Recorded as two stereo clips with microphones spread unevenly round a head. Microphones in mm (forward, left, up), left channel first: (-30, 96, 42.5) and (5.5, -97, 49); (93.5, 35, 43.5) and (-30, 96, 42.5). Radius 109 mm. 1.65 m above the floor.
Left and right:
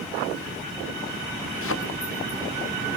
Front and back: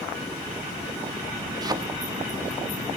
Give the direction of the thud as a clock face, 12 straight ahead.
9 o'clock.